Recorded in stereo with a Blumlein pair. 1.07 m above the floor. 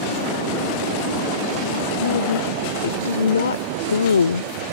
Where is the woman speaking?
65° left; by 4.5 s 75° left.